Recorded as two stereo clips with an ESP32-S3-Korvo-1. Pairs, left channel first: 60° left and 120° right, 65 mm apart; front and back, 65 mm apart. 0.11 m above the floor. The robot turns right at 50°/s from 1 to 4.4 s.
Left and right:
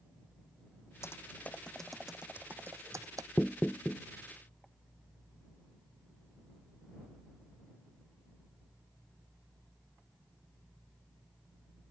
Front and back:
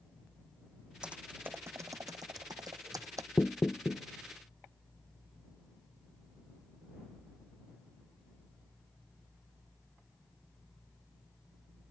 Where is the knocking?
25° right; by 4.0 s 10° left.